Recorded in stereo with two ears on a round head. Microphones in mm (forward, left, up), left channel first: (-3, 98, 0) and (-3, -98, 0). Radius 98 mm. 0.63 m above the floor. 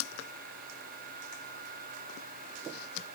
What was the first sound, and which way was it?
Only background noise.